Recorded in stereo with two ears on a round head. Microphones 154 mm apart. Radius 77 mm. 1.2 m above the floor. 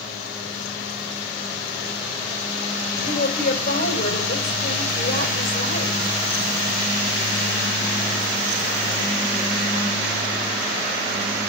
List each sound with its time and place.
3.0 s a woman speaking: 55° left (ahead or behind), 5.5 m